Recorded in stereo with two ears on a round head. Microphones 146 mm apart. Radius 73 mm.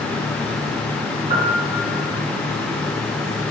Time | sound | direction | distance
1.3 | a piano | 40° right (ahead or behind) | 0.8 m